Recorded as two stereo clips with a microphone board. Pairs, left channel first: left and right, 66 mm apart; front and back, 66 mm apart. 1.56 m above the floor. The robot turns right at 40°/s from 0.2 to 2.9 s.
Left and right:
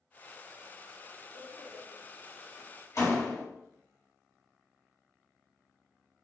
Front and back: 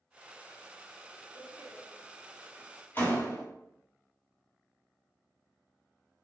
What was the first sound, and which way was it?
A door slam, 5° right.